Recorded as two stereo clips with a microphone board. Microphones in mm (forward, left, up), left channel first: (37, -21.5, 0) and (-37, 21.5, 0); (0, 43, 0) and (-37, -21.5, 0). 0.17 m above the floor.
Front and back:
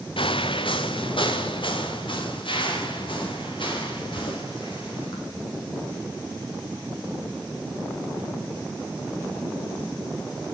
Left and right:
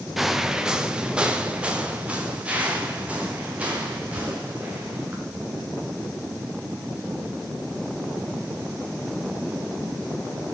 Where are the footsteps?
30° right, 0.9 m; by 5.2 s 50° right, 6 m.